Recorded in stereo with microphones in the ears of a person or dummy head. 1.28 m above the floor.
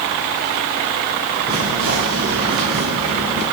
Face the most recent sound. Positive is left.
turn(degrees=-65)  # may be behind; listen again after turning